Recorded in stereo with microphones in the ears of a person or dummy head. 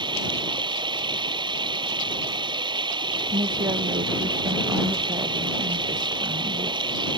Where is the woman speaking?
30° right (ahead or behind).